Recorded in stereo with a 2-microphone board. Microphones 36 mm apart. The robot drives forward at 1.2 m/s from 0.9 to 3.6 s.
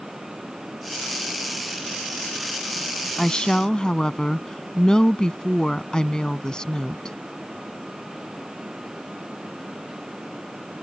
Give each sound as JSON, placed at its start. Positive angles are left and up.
{"t": 3.2, "sound": "a woman speaking", "side_deg": 20}